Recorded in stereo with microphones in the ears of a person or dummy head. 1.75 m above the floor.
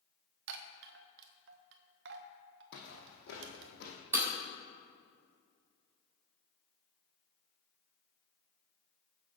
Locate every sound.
0.5 s a chime: 60° right (ahead or behind), 1.1 m
2.7 s footsteps: 60° left (ahead or behind), 4 m
4.1 s breaking glass: 15° right (ahead or behind), 3.5 m